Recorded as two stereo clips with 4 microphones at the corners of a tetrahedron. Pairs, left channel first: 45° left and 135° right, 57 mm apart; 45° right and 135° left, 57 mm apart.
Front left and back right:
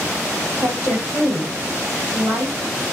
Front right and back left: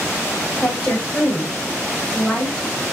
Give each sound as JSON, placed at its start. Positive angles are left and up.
{"t": 0.6, "sound": "a woman speaking", "azimuth_deg": -120, "distance_m": 5.0}